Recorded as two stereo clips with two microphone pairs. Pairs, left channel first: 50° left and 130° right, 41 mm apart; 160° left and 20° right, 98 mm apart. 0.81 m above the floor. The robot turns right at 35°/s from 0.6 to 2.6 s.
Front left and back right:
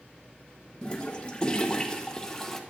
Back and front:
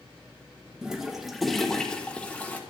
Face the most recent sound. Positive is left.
turn(degrees=115)